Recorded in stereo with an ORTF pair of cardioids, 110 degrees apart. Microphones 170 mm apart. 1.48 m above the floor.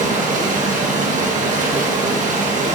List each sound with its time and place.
0.0 s running water: 45° right, 1.8 m